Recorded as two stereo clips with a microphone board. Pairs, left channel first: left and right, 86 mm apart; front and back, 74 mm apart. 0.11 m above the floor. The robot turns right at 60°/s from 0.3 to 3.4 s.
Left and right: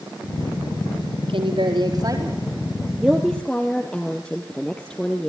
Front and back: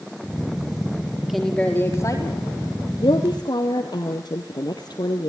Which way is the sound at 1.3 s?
90° right.